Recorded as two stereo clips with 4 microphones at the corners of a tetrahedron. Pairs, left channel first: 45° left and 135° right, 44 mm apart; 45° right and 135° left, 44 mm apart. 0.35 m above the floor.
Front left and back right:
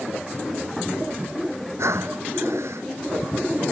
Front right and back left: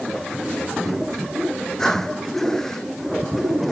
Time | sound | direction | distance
1.8 | breathing | 125° right | ?